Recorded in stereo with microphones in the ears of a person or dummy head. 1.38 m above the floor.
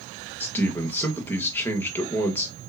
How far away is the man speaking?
About 1.1 m.